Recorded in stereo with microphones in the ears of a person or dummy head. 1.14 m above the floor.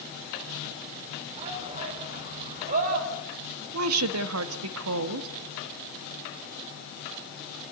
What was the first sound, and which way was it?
A shout, 35° right (ahead or behind).